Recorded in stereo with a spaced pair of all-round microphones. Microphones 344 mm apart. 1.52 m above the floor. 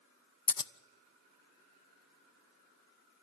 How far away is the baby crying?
No baby crying in this recording.